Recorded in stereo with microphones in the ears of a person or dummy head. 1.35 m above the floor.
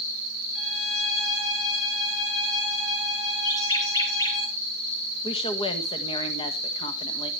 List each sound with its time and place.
0.6 s a violin: centre (ahead or behind), 7 m
3.5 s a bird: 20° left (ahead or behind), 3 m
5.2 s a woman speaking: 25° left (ahead or behind), 1.5 m